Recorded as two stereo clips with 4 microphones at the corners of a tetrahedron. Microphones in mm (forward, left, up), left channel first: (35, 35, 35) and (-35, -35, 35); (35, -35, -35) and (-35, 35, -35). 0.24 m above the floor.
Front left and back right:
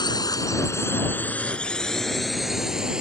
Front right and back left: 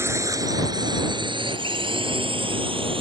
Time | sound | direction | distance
0.0 | a drone | 80° left | ?